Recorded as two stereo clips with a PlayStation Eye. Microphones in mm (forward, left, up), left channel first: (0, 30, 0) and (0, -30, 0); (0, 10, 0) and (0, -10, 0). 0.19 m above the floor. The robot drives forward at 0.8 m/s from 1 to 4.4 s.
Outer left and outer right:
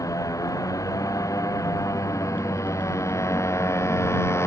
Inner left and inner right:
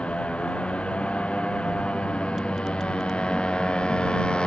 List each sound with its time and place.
0.0 s a motorcycle: 65° left (ahead or behind); by 4.5 s 50° left (ahead or behind)